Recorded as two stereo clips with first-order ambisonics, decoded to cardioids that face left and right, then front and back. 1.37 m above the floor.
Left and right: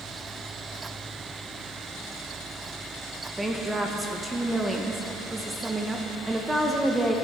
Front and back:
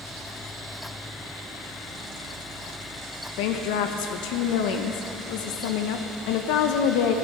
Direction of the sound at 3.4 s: 5° right.